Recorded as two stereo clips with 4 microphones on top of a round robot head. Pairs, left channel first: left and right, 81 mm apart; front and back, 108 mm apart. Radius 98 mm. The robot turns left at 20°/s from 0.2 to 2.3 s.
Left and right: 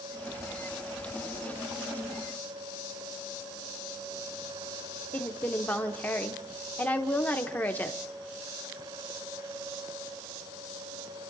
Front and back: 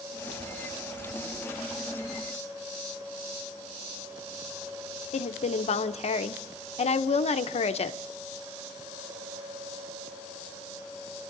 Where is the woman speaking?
20° left, 0.8 m.